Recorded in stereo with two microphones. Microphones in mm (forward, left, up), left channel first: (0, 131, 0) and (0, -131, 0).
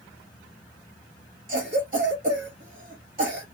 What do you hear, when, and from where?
1.5 s a cough: 35° right (ahead or behind), 0.8 m